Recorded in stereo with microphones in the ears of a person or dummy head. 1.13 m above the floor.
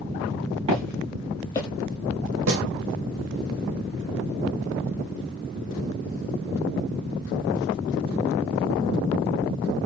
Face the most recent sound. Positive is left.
turn(degrees=-75)  # may be behind; listen again after turning